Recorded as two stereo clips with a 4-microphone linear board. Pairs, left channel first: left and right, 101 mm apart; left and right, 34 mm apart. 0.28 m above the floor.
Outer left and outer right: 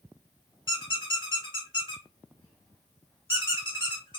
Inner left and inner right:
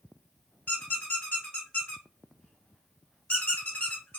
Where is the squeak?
55° left (ahead or behind), 1.1 m.